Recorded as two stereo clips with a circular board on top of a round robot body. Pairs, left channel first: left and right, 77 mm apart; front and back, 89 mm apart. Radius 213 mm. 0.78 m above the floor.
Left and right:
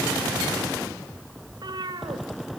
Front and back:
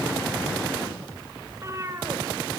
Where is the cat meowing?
120° right, 2 m.